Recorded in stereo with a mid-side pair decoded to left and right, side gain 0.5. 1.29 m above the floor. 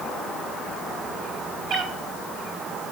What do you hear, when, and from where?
1.7 s a cat meowing: 65° right, 3 m